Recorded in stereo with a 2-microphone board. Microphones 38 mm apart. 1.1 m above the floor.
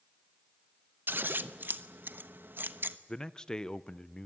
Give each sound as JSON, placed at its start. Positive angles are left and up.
{"t": 1.1, "sound": "scissors", "side_deg": -65, "distance_m": 1.0}
{"t": 3.1, "sound": "a man speaking", "side_deg": 20, "distance_m": 0.7}